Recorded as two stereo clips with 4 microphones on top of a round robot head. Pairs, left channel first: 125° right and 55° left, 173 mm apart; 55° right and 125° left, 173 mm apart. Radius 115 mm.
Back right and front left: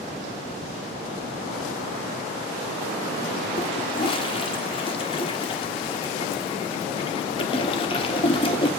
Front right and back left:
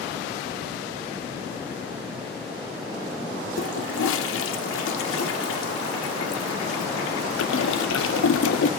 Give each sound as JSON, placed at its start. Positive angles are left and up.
{"t": 3.6, "sound": "a toilet flushing", "azimuth_deg": -65, "distance_m": 0.7}